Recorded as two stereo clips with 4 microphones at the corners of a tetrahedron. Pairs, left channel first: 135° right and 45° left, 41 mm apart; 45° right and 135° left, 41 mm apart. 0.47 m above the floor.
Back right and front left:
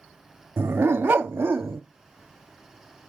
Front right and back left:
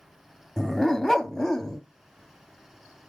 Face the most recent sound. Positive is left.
turn(degrees=35)